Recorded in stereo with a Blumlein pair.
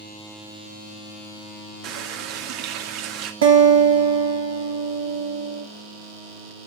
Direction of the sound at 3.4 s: 60° right.